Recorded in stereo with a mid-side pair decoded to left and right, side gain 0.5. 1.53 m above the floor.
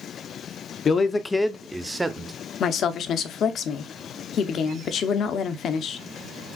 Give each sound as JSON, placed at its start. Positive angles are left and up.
{"t": 0.8, "sound": "a man speaking", "azimuth_deg": 45, "distance_m": 0.6}
{"t": 2.6, "sound": "a woman speaking", "azimuth_deg": 60, "distance_m": 0.7}